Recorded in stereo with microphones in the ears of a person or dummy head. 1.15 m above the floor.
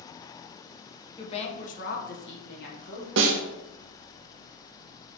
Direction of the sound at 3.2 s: 65° right (ahead or behind).